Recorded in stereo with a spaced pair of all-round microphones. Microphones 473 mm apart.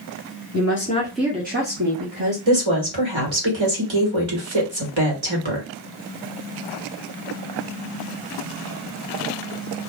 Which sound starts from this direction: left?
A woman speaking, at 0.5 s.